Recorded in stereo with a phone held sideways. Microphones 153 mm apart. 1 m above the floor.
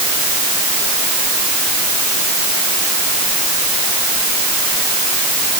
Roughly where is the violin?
No violin in this recording.